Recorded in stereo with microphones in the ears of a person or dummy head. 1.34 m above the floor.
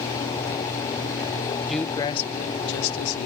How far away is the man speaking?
About 0.7 m.